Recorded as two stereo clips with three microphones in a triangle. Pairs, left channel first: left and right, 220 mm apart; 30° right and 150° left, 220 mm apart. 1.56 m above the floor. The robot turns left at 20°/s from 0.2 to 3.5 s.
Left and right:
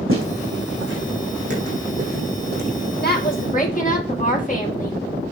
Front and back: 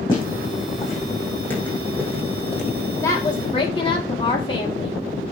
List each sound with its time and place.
0.1 s footsteps: 100° right, 4.5 m; by 2.6 s 115° right, 2.5 m
3.0 s a woman speaking: 45° left, 2 m; by 5.0 s 35° left, 2 m